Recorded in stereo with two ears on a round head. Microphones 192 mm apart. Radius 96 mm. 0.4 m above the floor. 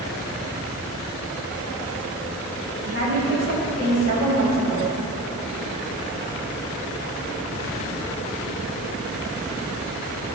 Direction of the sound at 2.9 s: 55° right (ahead or behind).